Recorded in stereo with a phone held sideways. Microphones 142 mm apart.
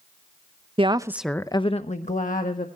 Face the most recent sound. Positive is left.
turn(degrees=70)  # may be behind; listen again after turning